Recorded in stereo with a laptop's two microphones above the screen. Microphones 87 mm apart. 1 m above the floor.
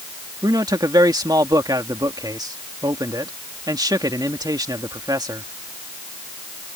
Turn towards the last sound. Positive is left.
turn(degrees=-50)  # may be behind; listen again after turning